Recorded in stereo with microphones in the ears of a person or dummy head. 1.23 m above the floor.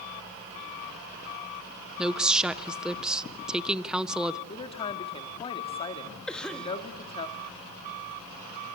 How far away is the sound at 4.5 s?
About 2 m.